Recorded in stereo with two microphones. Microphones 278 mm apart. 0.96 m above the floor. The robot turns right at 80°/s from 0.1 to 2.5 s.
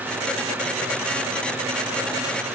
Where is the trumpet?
I don't hear a trumpet.